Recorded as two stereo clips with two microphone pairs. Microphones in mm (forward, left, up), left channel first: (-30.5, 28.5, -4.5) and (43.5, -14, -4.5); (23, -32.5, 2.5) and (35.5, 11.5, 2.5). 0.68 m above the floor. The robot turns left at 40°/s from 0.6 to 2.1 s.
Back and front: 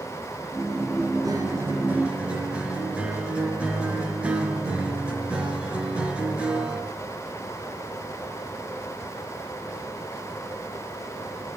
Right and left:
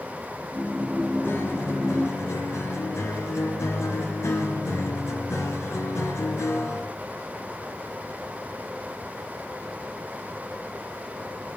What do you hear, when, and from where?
1.2 s a guitar: 70° right, 3.5 m; by 6.9 s 105° right, 3.5 m